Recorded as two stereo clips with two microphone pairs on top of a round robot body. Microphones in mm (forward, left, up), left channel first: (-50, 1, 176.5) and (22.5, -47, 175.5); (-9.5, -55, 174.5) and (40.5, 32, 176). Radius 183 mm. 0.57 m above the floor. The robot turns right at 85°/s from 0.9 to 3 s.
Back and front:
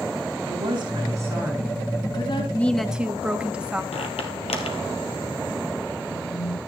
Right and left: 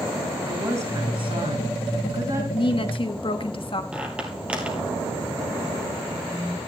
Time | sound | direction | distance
0.5 | a woman speaking | straight ahead | 7.5 m
2.5 | a woman speaking | 150° right | 1.6 m
3.9 | a squeak | 140° left | 1.3 m